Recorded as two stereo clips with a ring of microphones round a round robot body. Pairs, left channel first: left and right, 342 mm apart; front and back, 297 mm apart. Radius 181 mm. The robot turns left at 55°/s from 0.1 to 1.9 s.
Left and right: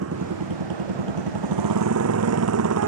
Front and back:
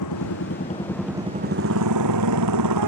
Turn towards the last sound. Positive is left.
turn(degrees=-140)